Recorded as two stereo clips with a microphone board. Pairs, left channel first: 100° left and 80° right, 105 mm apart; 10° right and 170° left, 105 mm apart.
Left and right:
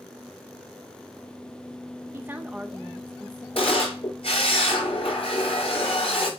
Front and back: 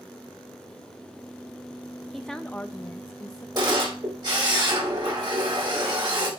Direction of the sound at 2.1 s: 100° right.